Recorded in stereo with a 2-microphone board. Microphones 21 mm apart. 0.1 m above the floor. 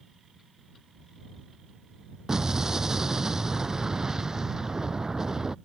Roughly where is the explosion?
Right.